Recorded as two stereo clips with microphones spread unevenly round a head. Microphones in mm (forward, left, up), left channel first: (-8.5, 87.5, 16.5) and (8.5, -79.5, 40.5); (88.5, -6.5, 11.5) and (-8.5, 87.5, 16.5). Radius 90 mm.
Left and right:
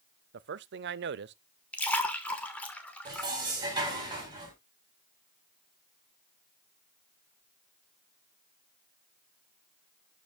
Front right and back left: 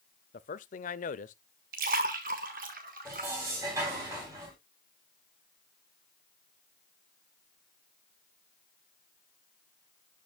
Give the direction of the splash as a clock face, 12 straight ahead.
6 o'clock.